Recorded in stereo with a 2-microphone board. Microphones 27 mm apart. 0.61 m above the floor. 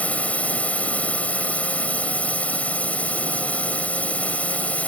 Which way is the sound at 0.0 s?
65° left (ahead or behind).